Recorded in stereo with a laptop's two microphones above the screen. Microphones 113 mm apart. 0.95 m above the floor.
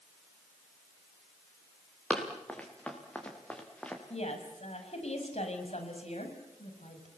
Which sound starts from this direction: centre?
Running footsteps, at 2.1 s.